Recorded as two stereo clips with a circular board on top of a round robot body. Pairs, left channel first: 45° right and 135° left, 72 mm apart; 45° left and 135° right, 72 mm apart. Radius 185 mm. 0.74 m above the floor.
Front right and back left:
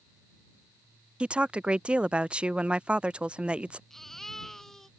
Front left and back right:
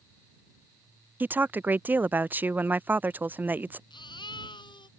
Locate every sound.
1.2 s a woman speaking: 170° right
3.9 s a baby crying: 40° left